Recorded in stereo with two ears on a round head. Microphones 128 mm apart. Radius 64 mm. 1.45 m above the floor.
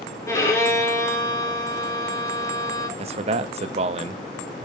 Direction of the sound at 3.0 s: 45° right (ahead or behind).